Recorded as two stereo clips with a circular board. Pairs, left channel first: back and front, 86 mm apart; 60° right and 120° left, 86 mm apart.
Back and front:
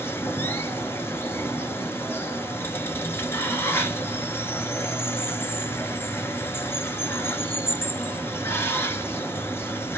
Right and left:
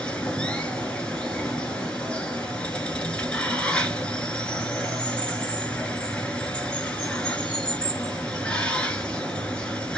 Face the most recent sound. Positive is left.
turn(degrees=-135)